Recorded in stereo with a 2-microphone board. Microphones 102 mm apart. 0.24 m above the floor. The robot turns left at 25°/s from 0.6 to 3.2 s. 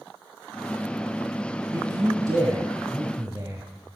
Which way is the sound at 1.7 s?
95° right.